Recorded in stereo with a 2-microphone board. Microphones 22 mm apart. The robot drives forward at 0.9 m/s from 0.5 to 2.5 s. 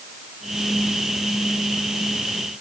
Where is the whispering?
I don't hear whispering.